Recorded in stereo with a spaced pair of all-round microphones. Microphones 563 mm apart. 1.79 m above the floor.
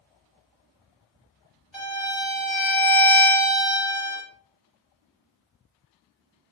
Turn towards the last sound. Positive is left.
turn(degrees=0)  # may be behind; listen again after turning